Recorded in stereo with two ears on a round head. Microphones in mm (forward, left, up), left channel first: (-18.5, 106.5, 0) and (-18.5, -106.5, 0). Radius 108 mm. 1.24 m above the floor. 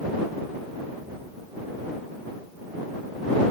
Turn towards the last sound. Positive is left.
No sound to turn to.